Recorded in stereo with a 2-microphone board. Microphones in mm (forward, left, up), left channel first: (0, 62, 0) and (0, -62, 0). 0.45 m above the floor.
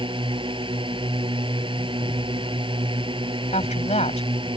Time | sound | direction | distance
0.0 | a drone | 45° right (ahead or behind) | ?
3.5 | a woman speaking | 65° left (ahead or behind) | ?